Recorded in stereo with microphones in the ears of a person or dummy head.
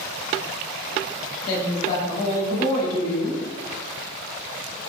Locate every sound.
1.5 s a woman speaking: 50° left (ahead or behind), 1.4 m